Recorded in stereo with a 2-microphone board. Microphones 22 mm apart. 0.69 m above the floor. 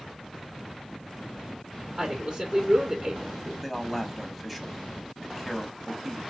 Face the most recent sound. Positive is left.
turn(degrees=-5)  # may be behind; listen again after turning